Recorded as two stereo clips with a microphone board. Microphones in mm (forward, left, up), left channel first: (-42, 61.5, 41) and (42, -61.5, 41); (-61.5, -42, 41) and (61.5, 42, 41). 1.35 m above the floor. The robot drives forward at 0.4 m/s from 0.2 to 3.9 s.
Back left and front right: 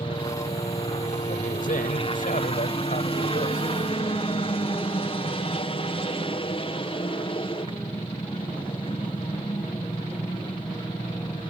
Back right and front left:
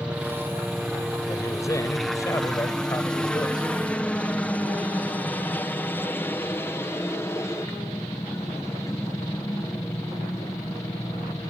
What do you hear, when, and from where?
0.0 s a helicopter: 115° left; by 11.5 s 160° left
1.3 s a man speaking: 145° left; by 3.7 s 150° left